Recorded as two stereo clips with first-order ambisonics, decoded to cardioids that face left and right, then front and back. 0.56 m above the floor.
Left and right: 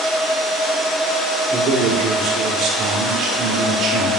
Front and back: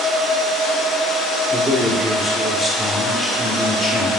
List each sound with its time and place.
1.5 s a man speaking: 90° right, 1.1 m